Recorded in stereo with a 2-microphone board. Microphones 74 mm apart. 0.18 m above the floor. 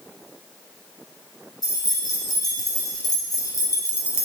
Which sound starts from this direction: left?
Keys jangling, at 1.6 s.